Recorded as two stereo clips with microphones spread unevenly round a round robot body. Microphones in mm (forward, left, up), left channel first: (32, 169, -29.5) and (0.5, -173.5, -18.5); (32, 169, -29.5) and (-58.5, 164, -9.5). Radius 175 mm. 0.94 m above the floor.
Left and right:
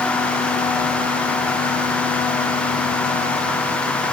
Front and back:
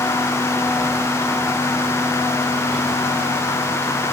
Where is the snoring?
No snoring in this recording.